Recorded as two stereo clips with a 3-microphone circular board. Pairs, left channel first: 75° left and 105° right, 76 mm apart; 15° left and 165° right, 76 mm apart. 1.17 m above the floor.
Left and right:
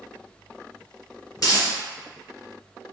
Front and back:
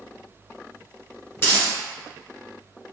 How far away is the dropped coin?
About 1.6 m.